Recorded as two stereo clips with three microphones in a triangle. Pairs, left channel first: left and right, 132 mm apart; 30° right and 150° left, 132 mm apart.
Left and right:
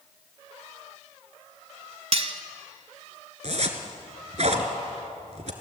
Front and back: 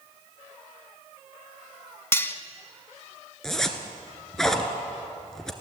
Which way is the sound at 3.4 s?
115° right.